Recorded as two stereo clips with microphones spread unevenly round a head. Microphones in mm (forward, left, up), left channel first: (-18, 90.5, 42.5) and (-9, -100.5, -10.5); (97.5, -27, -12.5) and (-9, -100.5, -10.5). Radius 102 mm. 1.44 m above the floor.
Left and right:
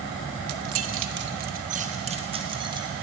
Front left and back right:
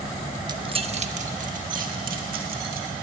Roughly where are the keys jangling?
Right.